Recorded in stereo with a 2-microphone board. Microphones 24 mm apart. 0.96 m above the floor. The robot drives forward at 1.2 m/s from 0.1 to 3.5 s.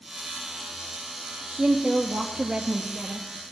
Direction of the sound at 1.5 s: 35° right (ahead or behind).